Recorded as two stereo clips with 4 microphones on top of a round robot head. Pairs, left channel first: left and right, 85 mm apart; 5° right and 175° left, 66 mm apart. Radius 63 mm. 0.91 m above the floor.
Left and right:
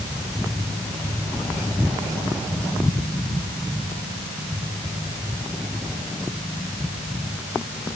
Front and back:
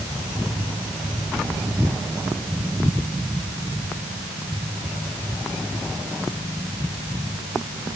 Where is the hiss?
No hiss in this recording.